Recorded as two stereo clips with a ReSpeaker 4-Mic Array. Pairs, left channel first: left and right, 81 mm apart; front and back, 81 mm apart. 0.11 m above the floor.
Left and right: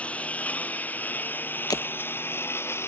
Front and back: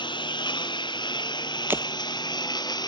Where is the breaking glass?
120° left.